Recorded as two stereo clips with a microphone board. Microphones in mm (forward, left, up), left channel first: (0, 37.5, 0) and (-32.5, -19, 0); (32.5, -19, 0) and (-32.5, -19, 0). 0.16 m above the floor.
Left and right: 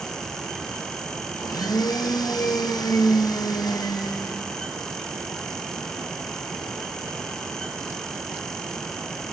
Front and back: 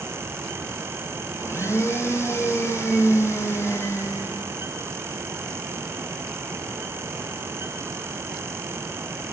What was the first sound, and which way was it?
A blender, 50° left.